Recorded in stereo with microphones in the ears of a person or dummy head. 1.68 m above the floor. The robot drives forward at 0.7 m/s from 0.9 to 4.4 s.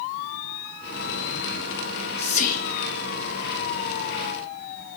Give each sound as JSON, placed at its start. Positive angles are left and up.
{"t": 1.9, "sound": "whispering", "side_deg": 30, "distance_m": 0.9}